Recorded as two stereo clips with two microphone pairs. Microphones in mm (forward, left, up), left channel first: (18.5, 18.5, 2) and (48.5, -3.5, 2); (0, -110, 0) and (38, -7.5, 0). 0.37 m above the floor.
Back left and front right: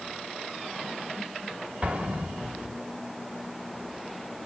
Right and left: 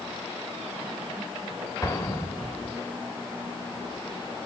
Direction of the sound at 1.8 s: 60° right.